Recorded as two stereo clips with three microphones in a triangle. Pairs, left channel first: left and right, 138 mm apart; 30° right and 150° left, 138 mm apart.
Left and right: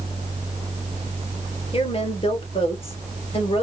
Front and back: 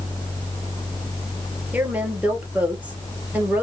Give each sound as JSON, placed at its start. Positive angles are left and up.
{"t": 1.7, "sound": "a woman speaking", "azimuth_deg": 75, "distance_m": 1.5}